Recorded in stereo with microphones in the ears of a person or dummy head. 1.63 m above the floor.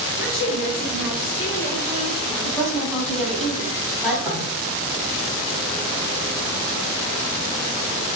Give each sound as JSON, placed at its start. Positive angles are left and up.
{"t": 0.2, "sound": "a woman speaking", "side_deg": 60, "distance_m": 1.3}
{"t": 2.5, "sound": "a woman speaking", "side_deg": 5, "distance_m": 1.2}
{"t": 4.2, "sound": "knocking", "side_deg": -25, "distance_m": 0.7}